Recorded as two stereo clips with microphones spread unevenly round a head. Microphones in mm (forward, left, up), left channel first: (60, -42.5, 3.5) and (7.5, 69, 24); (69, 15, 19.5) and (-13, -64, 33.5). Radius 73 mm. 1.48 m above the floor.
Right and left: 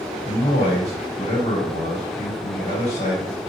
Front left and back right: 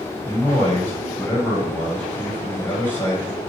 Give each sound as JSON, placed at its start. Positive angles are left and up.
{"t": 0.2, "sound": "a man speaking", "azimuth_deg": -30, "distance_m": 5.0}